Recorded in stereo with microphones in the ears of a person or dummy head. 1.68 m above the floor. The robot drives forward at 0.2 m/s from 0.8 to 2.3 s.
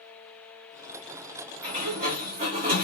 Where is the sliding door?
45° right (ahead or behind), 1.3 m; by 2.9 s 40° right (ahead or behind), 1.4 m.